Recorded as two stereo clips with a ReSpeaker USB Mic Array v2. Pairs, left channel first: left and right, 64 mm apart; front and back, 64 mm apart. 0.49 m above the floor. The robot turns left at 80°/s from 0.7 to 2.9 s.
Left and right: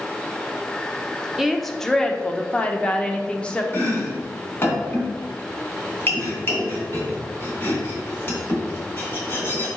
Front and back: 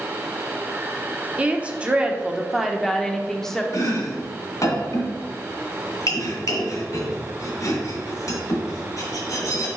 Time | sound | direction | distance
1.4 | a woman speaking | 170° right | 0.7 m
3.7 | chopping | 35° left | 2.0 m